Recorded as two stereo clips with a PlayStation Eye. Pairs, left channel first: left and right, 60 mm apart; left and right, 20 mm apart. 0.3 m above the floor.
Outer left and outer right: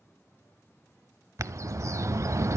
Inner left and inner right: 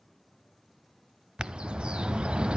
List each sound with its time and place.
1.4 s a bird: 55° right (ahead or behind), 0.6 m